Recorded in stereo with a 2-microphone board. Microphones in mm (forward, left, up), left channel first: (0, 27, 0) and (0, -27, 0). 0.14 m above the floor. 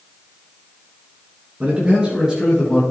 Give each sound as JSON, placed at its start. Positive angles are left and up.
{"t": 1.6, "sound": "a man speaking", "side_deg": -20, "distance_m": 2.0}